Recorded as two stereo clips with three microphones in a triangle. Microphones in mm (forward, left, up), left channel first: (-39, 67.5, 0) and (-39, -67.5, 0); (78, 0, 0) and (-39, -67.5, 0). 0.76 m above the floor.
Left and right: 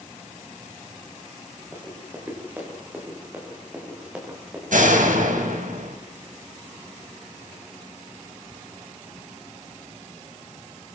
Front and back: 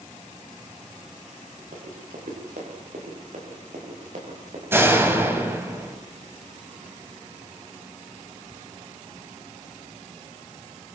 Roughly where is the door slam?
Right.